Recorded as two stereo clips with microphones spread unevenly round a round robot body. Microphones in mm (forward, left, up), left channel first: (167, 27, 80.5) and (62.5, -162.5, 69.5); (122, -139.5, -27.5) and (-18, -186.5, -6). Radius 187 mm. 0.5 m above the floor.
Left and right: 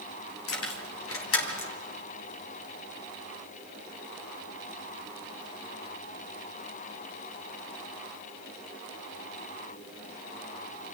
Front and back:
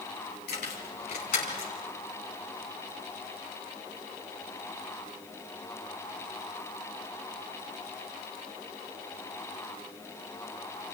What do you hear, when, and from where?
0.5 s keys jangling: 55° left, 2 m; by 1.7 s 45° left, 3 m